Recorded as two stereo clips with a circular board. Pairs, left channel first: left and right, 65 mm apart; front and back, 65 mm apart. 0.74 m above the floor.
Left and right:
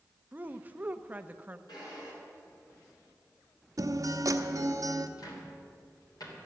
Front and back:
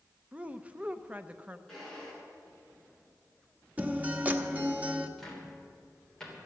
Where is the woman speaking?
130° right, 0.6 m.